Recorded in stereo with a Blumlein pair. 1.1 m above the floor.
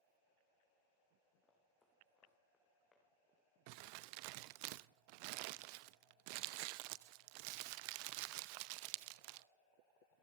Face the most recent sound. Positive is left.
turn(degrees=-45)